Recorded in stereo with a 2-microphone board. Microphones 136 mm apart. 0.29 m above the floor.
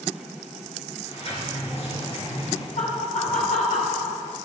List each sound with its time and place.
1.1 s a sliding door: 50° left (ahead or behind), 4.5 m
2.8 s laughter: 70° left (ahead or behind), 4 m